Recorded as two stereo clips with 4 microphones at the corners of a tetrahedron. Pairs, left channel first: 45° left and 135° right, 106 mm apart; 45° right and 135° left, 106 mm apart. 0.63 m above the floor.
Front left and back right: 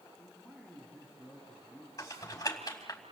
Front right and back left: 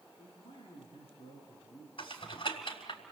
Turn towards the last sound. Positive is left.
turn(degrees=-15)